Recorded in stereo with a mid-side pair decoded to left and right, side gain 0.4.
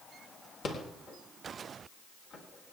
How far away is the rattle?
About 4 m.